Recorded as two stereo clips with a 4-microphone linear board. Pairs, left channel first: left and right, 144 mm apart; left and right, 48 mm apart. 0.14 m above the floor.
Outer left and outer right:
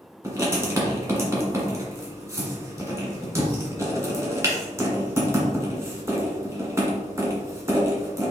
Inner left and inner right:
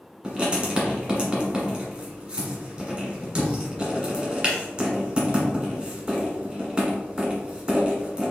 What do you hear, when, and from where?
0.2 s writing: 20° right (ahead or behind), 1.5 m